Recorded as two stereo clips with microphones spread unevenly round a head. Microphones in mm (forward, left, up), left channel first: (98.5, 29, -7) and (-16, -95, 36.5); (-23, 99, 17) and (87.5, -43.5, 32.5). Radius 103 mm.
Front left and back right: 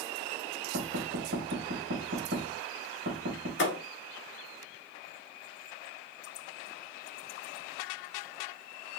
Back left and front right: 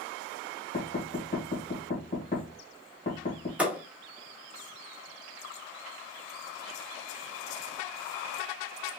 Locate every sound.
0.7 s knocking: straight behind, 1.8 m
3.6 s a thud: 30° left, 1.2 m